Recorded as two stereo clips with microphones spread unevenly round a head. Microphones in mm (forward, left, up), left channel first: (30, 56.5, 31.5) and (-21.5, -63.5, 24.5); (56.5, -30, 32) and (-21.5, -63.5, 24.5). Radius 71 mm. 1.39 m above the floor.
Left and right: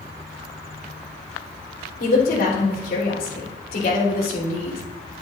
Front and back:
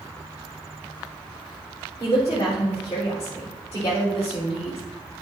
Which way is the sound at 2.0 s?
85° left.